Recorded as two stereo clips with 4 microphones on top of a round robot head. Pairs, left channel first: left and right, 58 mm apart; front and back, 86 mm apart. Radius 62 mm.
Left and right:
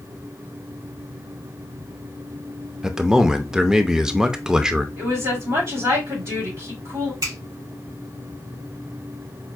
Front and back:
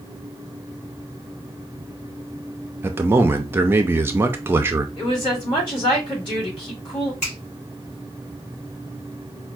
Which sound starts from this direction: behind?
A man speaking, at 2.8 s.